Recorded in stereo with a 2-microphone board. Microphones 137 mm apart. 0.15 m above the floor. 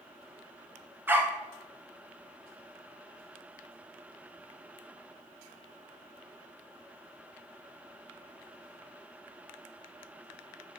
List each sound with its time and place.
1.1 s a dog barking: 15° right (ahead or behind), 0.8 m